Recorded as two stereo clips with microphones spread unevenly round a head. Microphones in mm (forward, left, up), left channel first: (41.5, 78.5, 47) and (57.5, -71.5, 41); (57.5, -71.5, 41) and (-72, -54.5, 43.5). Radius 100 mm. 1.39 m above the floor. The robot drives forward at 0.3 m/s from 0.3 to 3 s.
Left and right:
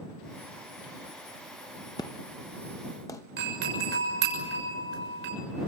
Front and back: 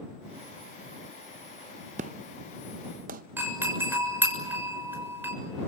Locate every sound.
2.0 s an explosion: 160° left, 0.6 m; by 3.2 s 170° left, 0.9 m
3.4 s a doorbell: 115° right, 6.5 m